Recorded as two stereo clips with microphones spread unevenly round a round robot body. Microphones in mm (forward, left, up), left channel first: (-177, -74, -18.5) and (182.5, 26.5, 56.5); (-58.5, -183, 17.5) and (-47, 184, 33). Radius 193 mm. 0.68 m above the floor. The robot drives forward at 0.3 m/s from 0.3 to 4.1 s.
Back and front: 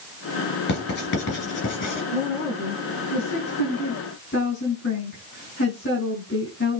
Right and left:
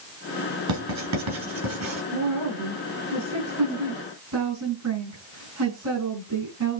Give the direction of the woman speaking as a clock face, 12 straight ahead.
8 o'clock.